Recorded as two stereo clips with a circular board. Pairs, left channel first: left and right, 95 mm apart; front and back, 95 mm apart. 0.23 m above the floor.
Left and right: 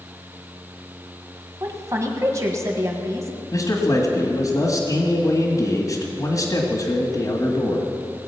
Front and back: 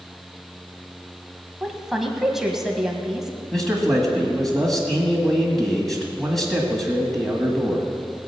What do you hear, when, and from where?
1.6 s a woman speaking: 95° right, 1.5 m
3.5 s a man speaking: 85° left, 1.6 m